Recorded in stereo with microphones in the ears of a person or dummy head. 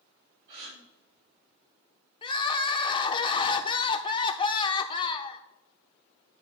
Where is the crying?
20° left (ahead or behind), 0.5 m.